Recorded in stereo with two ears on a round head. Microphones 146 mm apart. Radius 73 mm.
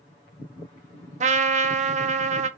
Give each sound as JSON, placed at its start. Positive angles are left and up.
{"t": 1.2, "sound": "a trumpet", "side_deg": -50, "distance_m": 0.6}